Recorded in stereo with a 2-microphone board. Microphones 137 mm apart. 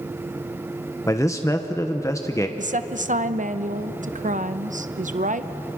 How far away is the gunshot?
No gunshot in this recording.